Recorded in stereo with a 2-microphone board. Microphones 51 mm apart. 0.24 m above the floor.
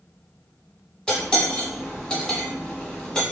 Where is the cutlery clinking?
15° left (ahead or behind), 0.9 m.